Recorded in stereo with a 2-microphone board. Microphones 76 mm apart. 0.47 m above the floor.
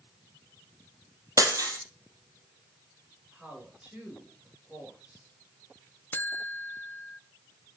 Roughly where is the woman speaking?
Centre.